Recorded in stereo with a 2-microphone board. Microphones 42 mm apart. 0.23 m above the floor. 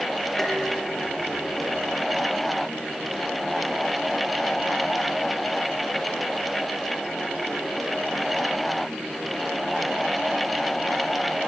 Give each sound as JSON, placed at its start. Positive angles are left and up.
{"t": 0.4, "sound": "dishes clattering", "side_deg": 5, "distance_m": 7.5}